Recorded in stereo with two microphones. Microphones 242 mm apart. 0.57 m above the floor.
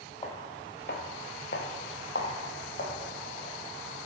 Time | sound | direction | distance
0.2 | footsteps | 20° left (ahead or behind) | 0.9 m